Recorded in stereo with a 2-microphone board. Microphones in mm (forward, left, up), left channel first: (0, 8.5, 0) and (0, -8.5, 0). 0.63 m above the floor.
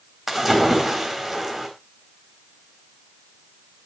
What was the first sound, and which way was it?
A splash, 20° right (ahead or behind).